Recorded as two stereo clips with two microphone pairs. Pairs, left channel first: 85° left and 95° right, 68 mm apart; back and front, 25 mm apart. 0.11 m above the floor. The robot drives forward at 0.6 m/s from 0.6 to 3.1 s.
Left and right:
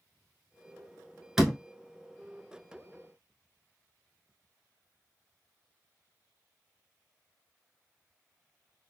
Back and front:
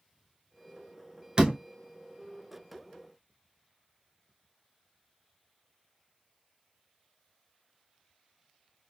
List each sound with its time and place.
1.4 s a door slam: 15° right, 1.2 m; by 1.6 s 20° right, 1.1 m